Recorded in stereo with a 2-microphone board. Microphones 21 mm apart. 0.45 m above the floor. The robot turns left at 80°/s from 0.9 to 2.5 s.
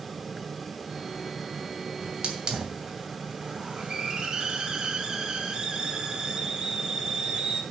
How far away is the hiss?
About 2.5 m.